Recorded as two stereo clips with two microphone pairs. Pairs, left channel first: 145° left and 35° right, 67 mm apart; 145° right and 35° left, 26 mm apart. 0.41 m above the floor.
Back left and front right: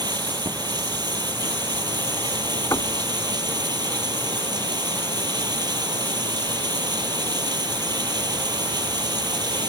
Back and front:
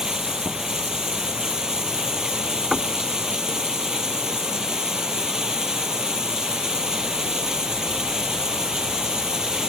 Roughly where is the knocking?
Left.